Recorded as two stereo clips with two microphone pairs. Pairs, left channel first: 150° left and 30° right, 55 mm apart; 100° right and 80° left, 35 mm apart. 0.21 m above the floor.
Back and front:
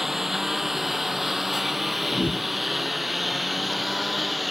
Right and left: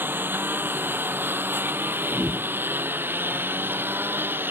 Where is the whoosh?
115° left.